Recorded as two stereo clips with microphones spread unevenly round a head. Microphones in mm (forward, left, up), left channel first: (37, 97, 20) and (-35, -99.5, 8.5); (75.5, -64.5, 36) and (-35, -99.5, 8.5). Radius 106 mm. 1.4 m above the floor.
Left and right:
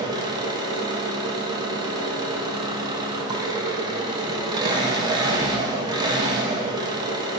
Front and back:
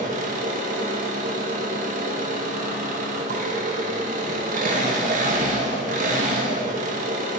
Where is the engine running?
Straight behind, 0.8 m.